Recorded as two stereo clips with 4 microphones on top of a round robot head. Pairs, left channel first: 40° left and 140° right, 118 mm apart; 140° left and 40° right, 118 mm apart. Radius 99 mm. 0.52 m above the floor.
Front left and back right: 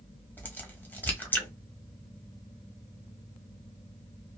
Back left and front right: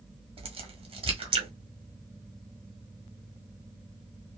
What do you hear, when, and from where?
0.4 s a crack: 30° right, 1.5 m